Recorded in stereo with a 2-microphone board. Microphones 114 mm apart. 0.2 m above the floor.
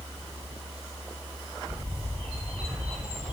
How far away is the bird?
About 4 m.